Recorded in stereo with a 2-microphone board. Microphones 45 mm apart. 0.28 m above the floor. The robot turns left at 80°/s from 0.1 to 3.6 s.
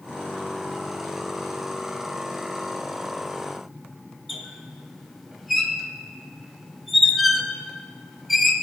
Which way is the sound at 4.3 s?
Centre (ahead or behind).